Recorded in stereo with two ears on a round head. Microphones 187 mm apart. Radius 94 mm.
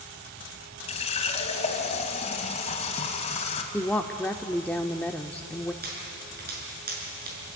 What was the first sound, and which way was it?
A running tap, 30° left (ahead or behind).